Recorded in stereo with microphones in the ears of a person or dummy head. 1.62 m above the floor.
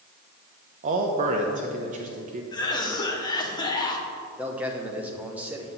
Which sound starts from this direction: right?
A man speaking, at 0.8 s.